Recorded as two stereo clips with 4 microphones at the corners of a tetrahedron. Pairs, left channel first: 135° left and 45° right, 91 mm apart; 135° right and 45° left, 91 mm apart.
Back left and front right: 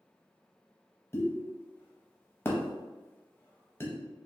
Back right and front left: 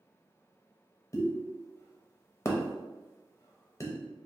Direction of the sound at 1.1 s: 175° right.